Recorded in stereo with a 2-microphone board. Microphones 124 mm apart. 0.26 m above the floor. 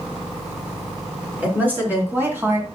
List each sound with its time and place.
1.4 s a woman speaking: 15° right (ahead or behind), 4 m; by 2.6 s 20° right (ahead or behind), 2.5 m